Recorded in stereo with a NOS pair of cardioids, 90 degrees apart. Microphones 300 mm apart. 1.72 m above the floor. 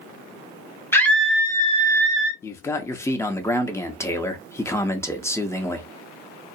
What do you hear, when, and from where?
0.9 s a scream: 10° left, 1.0 m; by 2.3 s 50° right, 0.7 m
2.4 s a man speaking: 10° left, 0.6 m